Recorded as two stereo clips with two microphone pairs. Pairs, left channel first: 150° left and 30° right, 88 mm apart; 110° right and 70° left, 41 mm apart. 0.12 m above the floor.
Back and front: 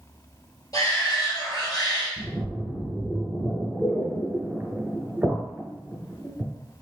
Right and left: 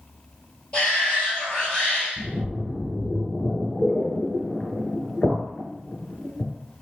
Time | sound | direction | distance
0.7 | a shout | 170° right | 1.9 m
2.2 | a splash | 80° right | 1.5 m